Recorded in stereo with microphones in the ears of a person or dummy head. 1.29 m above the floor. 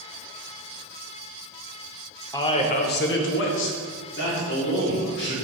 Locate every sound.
2.3 s a man speaking: 15° left (ahead or behind), 0.8 m; by 5.3 s 55° left (ahead or behind), 2.5 m